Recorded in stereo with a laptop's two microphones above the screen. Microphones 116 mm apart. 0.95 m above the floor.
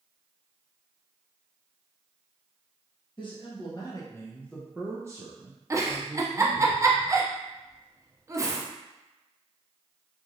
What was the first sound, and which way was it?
A man speaking, 45° left (ahead or behind).